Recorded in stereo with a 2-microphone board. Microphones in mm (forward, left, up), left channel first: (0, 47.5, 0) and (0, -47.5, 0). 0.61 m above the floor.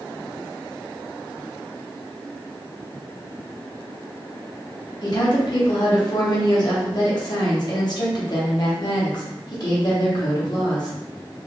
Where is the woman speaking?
50° left (ahead or behind), 0.8 m.